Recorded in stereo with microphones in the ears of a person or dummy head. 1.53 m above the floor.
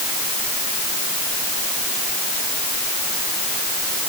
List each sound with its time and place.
Only background noise.